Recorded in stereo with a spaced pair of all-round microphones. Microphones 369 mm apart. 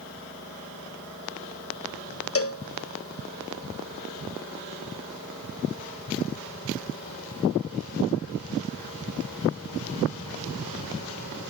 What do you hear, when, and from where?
2.4 s a cowbell: 40° left (ahead or behind), 0.7 m